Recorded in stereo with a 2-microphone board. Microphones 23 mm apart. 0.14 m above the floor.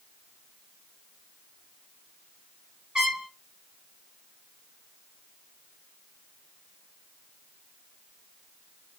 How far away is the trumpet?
About 2.5 m.